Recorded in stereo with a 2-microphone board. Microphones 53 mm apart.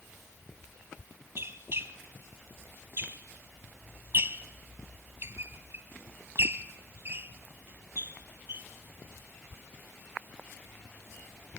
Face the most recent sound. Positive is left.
turn(degrees=-50)  # may be behind; listen again after turning